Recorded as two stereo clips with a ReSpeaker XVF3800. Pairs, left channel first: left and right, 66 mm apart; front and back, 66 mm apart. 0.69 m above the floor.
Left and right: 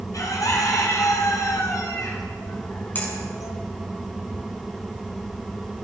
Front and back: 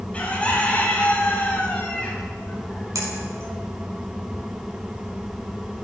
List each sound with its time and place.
0.1 s a bird: 70° left, 2 m
3.0 s a finger snap: 150° left, 5.5 m